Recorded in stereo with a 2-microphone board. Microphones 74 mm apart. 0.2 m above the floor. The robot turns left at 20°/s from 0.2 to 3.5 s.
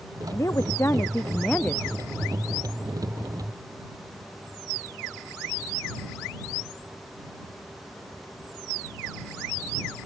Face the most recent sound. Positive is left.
turn(degrees=-20)